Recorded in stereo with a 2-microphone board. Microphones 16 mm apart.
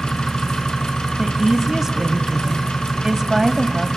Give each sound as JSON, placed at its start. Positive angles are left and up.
{"t": 0.0, "sound": "an engine running", "side_deg": 55, "distance_m": 3.0}
{"t": 1.2, "sound": "a woman speaking", "side_deg": -30, "distance_m": 1.2}